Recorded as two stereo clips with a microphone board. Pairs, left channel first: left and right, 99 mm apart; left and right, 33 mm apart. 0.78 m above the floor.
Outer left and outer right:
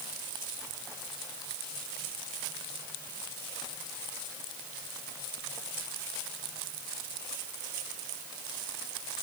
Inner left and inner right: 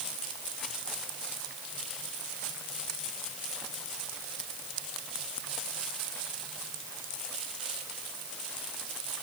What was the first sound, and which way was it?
Only background noise.